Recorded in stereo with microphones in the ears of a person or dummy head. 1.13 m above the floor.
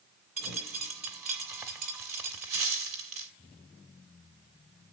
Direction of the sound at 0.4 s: Centre (ahead or behind).